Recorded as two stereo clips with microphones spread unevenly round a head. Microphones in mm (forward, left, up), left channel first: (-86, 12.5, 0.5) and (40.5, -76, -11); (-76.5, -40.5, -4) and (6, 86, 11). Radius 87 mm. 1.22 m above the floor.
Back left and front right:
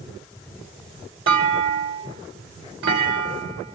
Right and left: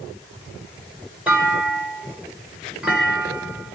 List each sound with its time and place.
1.3 s a clunk: 25° right, 3 m